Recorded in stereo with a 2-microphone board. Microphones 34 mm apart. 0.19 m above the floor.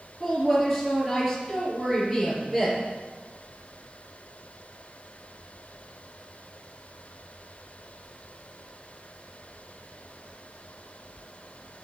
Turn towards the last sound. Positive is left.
turn(degrees=-5)  # may be behind; listen again after turning